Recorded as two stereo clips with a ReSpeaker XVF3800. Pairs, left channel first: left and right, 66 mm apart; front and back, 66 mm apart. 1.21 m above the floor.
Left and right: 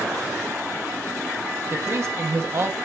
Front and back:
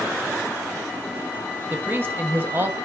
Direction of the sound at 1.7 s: 125° right.